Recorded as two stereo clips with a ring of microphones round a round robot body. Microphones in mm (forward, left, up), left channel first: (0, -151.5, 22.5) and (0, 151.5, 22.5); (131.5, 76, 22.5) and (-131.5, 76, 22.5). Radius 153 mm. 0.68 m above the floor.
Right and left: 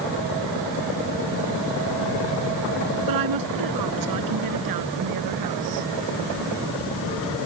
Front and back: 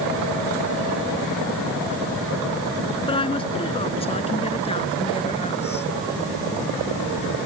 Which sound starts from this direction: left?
A woman speaking, at 3.1 s.